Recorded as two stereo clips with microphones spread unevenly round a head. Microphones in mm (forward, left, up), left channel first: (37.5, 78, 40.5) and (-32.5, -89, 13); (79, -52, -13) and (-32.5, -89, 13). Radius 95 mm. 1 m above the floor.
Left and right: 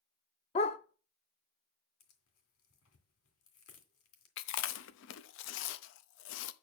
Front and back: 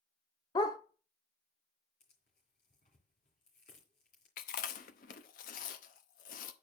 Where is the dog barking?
80° left, 0.6 m.